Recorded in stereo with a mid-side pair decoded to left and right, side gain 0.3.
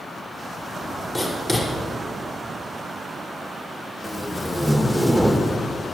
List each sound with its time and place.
1.1 s writing: 25° left, 6 m
4.0 s tape being pulled: 15° right, 1.6 m